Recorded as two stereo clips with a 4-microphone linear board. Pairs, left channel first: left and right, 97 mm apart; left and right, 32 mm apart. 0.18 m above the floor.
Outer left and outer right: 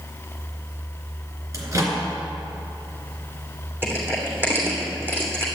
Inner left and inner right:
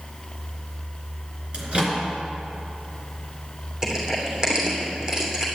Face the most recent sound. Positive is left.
turn(degrees=-25)  # may be behind; listen again after turning